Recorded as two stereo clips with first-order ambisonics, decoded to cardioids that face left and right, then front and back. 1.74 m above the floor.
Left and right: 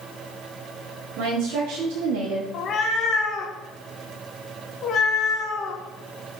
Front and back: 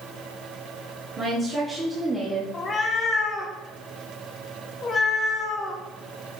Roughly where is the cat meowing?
Ahead left.